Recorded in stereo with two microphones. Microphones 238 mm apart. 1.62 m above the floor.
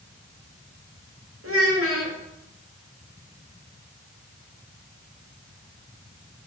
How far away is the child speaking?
About 2 m.